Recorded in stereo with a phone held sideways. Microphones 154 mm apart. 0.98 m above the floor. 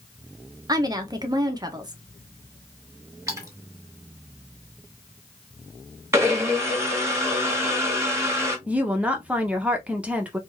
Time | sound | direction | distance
0.7 | a woman speaking | 25° right (ahead or behind) | 0.7 m
3.3 | a splash | 20° right (ahead or behind) | 1.3 m
6.1 | a blender | 15° right (ahead or behind) | 1.1 m
8.7 | a woman speaking | 10° right (ahead or behind) | 0.8 m